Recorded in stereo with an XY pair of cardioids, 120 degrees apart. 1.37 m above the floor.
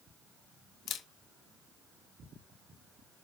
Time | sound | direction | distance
0.9 | a camera shutter | 60° left | 1.6 m